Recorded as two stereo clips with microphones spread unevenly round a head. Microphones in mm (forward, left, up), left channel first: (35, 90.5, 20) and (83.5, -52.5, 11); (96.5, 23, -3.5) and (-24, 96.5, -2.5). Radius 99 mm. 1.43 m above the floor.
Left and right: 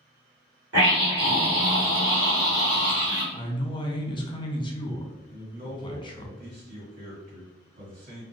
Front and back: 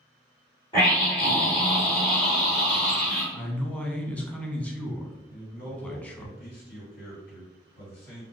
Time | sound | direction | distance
0.7 | a scream | 100° right | 1.0 m
3.3 | a man speaking | 50° left | 0.8 m
5.3 | a man speaking | 55° right | 1.4 m